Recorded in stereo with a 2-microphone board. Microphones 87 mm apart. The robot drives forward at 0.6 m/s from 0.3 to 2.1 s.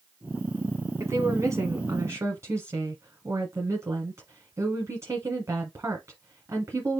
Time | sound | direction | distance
1.0 | a woman speaking | 35° right (ahead or behind) | 1.2 m